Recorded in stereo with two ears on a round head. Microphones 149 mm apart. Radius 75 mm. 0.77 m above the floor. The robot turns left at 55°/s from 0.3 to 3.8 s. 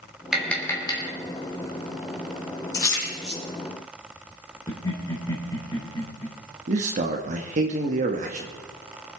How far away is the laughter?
About 3.5 m.